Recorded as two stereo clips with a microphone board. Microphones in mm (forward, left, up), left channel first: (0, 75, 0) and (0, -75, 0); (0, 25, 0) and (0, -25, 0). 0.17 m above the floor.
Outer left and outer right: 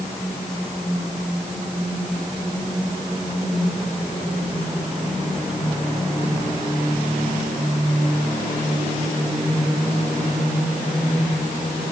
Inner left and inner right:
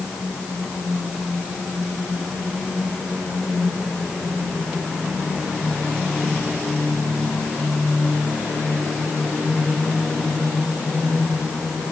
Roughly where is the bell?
No bell in this recording.